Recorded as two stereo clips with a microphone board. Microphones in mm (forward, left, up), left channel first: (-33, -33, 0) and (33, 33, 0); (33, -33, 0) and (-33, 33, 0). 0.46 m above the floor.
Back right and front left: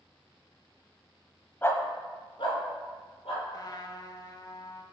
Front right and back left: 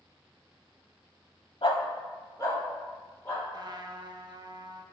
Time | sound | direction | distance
1.6 | a dog barking | 65° right | 0.6 m
3.5 | a trumpet | straight behind | 0.5 m